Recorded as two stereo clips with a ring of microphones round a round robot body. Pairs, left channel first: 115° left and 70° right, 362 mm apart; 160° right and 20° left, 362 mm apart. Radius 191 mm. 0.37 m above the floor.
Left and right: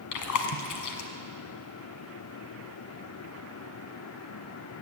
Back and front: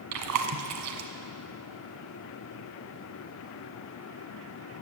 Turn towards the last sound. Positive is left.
turn(degrees=70)